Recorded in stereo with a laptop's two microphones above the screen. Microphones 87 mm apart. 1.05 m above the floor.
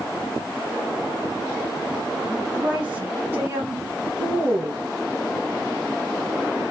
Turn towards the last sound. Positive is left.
turn(degrees=-60)  # may be behind; listen again after turning